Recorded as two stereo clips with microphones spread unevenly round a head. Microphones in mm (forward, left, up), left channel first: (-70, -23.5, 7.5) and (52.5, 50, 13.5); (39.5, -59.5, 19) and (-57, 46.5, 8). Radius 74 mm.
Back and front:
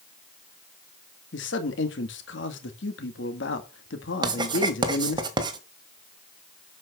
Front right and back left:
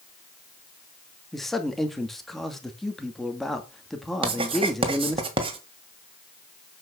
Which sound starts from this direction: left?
Writing, at 4.2 s.